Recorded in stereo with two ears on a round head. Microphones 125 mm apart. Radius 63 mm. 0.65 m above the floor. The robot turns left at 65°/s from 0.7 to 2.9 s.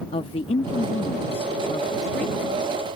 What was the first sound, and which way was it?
A woman speaking, 110° left.